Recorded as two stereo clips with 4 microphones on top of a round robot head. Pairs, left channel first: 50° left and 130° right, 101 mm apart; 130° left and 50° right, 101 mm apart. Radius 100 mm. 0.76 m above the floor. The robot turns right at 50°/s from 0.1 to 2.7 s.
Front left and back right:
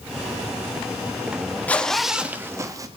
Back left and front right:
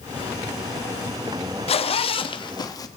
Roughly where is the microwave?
I don't hear a microwave.